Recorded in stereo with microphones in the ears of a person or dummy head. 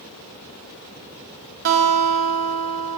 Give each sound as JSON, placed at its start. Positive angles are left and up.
{"t": 1.6, "sound": "a guitar", "side_deg": -50, "distance_m": 1.9}